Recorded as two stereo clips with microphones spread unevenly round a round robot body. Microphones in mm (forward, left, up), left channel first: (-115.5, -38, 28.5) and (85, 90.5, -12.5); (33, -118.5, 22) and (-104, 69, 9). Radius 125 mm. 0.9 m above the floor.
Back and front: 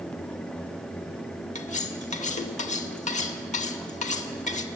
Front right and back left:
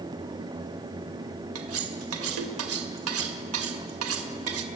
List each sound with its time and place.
1.6 s cutlery clinking: 150° left, 2.0 m